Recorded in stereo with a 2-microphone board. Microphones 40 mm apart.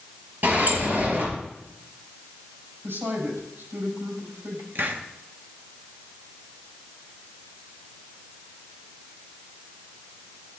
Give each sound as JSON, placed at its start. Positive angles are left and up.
{"t": 0.4, "sound": "a sliding door", "side_deg": -45, "distance_m": 4.0}
{"t": 2.8, "sound": "a woman speaking", "side_deg": -75, "distance_m": 5.0}
{"t": 4.8, "sound": "a hiss", "side_deg": -55, "distance_m": 1.1}